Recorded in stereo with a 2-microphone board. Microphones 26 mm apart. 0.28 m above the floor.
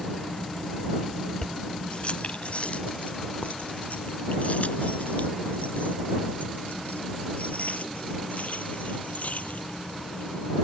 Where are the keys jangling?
35° left (ahead or behind); by 10.6 s 70° left (ahead or behind).